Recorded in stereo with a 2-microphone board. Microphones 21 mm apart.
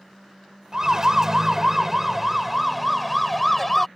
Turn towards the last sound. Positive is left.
turn(degrees=5)  # may be behind; listen again after turning